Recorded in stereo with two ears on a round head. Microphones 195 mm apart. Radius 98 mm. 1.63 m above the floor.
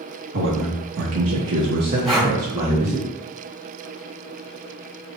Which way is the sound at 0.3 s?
55° right (ahead or behind).